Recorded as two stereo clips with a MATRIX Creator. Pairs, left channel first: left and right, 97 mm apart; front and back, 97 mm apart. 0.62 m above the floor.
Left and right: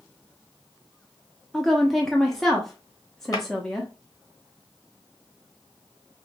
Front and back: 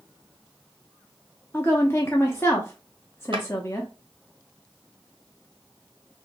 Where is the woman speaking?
10° left, 0.6 m.